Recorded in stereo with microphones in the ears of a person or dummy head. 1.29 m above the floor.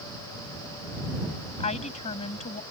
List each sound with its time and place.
1.6 s a woman speaking: 30° left (ahead or behind)